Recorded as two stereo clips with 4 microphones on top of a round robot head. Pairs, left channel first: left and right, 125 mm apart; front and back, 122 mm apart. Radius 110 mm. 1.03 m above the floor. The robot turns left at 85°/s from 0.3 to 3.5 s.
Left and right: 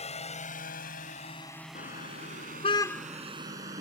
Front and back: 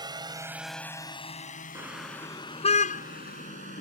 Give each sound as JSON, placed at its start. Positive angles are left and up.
{"t": 0.0, "sound": "a drone", "azimuth_deg": 125}
{"t": 1.8, "sound": "a car horn", "azimuth_deg": 110}